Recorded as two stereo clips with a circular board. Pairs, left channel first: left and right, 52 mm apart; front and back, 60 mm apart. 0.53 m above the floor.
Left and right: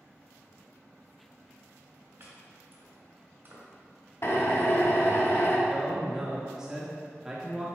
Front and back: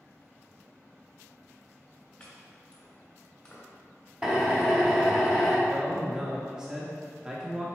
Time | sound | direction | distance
2.2 | chopping | 75° right | 1.9 m
4.2 | a drill | 105° left | 1.1 m
5.7 | a man speaking | 135° right | 0.8 m